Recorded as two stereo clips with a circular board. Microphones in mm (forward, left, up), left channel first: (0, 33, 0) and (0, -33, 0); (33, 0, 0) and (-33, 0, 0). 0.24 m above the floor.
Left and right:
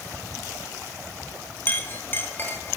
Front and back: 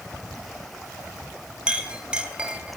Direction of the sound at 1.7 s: 120° left.